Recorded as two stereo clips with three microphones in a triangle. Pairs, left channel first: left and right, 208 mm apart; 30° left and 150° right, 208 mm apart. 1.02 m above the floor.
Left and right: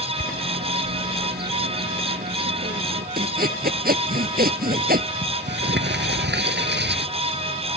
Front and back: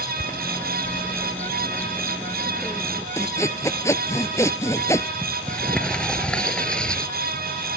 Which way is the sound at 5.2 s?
55° right.